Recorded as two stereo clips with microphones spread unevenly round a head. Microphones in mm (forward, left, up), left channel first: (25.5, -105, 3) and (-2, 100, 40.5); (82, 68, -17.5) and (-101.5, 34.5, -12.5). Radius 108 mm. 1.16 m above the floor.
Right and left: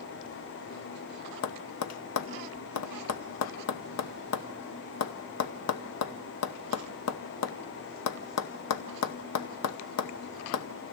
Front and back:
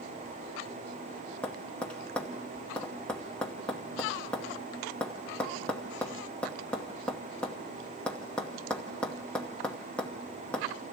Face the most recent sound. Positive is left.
turn(degrees=-75)